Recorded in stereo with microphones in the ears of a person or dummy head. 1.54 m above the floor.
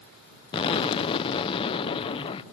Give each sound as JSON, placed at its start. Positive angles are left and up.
{"t": 0.5, "sound": "an explosion", "side_deg": 35}